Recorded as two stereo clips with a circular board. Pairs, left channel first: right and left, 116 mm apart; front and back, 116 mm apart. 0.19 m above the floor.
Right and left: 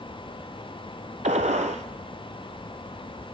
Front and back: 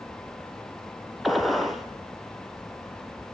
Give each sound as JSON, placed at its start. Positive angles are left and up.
{"t": 1.2, "sound": "a gunshot", "azimuth_deg": 90, "distance_m": 1.0}